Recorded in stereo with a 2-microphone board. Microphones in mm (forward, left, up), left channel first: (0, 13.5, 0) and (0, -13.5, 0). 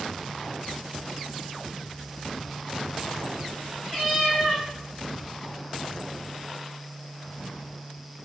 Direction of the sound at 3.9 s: Centre (ahead or behind).